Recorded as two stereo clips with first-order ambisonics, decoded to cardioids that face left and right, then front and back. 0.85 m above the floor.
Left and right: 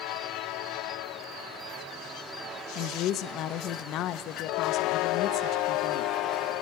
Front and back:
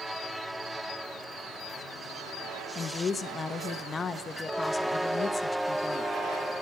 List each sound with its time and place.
2.8 s a woman speaking: 65° left, 0.5 m